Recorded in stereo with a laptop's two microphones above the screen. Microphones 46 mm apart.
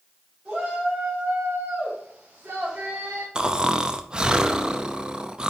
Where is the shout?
20° right (ahead or behind), 4 m; by 3.2 s 45° right (ahead or behind), 2 m.